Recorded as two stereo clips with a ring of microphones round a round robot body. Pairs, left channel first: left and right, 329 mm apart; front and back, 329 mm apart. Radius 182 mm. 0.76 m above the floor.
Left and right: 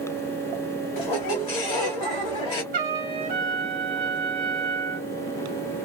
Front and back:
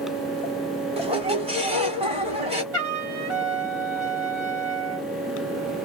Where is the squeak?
110° left, 1.0 m.